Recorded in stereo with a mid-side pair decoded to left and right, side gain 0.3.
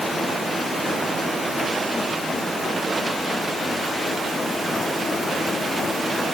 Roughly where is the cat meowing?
No cat meowing in this recording.